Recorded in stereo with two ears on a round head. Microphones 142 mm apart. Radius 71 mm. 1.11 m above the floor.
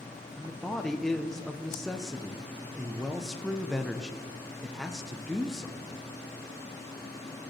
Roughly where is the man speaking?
Centre.